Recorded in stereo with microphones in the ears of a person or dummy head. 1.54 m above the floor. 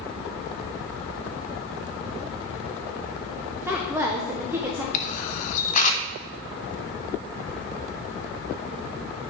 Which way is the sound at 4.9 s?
40° left (ahead or behind).